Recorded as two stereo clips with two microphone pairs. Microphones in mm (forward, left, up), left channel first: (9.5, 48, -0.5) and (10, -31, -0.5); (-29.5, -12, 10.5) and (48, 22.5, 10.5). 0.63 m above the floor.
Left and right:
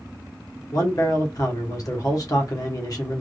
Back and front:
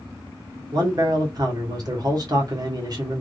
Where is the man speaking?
55° left, 1.3 m.